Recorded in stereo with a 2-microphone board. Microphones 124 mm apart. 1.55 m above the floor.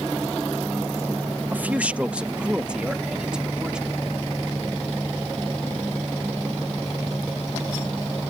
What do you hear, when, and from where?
1.5 s a man speaking: 15° right (ahead or behind); by 4.0 s 5° right (ahead or behind)